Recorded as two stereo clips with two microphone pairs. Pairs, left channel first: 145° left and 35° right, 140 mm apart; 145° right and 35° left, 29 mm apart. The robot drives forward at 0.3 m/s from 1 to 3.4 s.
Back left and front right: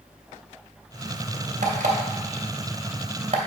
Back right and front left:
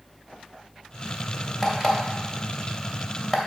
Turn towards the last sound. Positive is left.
turn(degrees=-75)